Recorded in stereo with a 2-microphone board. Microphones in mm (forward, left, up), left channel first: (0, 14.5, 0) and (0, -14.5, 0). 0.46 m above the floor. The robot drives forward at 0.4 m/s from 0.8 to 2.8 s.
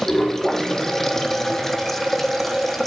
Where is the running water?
15° left (ahead or behind), 1.5 m; by 2.9 s 10° left (ahead or behind), 2 m.